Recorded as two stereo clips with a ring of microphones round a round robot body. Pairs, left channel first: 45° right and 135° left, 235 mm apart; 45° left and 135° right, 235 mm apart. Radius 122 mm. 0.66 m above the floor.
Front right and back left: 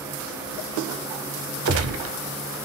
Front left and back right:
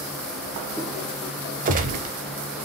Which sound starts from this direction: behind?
A gunshot, at 1.6 s.